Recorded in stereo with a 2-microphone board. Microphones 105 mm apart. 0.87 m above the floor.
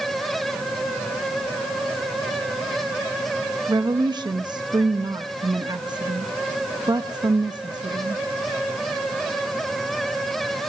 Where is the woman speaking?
40° right (ahead or behind), 0.6 m.